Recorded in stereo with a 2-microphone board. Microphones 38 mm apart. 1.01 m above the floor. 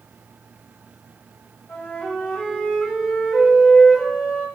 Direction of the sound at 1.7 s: 70° left (ahead or behind).